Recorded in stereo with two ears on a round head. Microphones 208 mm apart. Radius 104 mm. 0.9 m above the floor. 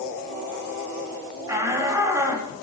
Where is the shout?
15° right (ahead or behind), 7 m.